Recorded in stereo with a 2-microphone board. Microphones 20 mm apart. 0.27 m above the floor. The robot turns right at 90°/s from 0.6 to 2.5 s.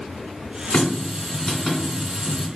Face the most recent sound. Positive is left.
turn(degrees=-120)